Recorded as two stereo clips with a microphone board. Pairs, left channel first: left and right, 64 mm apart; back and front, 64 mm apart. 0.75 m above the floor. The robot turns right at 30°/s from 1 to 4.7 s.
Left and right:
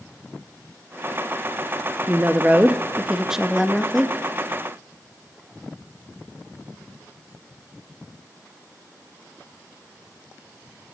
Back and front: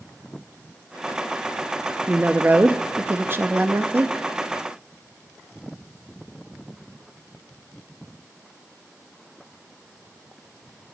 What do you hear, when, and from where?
2.1 s a woman speaking: 50° right, 0.6 m; by 4.1 s 10° left, 0.6 m